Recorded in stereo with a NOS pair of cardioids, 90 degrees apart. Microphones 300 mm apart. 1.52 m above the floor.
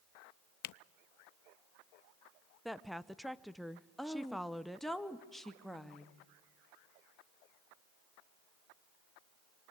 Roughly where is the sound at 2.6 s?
Ahead.